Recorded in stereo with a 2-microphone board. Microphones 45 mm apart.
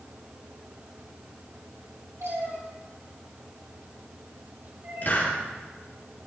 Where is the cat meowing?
90° right, 4 m; by 5.4 s 50° right (ahead or behind), 3 m.